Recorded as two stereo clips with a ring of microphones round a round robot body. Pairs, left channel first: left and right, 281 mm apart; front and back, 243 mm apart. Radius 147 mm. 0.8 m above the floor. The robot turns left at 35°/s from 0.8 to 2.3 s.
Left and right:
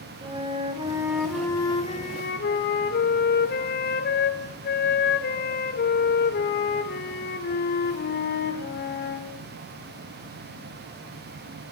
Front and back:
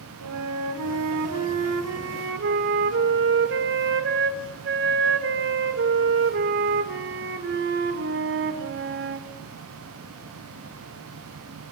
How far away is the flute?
About 2.5 m.